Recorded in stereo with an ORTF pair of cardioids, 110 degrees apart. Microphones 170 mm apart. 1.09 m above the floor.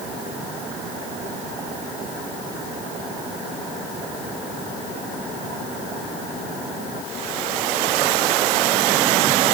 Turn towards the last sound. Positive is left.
No sound to turn to.